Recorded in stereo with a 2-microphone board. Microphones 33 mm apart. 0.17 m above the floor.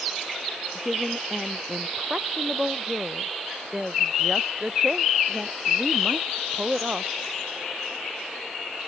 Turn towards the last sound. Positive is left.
turn(degrees=-30)  # may be behind; listen again after turning